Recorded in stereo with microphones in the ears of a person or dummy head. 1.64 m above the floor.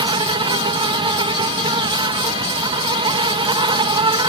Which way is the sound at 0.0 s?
20° right (ahead or behind).